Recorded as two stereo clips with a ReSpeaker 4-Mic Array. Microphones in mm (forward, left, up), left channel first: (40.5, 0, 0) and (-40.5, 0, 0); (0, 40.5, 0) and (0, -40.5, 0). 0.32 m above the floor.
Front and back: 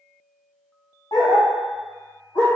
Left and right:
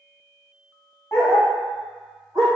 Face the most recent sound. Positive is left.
turn(degrees=-15)